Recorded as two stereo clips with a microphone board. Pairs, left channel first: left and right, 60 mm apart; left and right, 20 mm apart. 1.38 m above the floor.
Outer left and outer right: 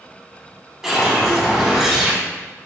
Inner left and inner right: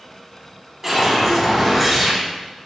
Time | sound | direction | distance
0.8 | a whoosh | 5° right (ahead or behind) | 1.2 m